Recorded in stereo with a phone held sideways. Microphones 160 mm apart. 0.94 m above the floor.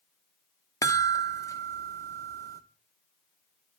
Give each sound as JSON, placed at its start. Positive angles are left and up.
{"t": 0.8, "sound": "a chime", "side_deg": 20, "distance_m": 0.7}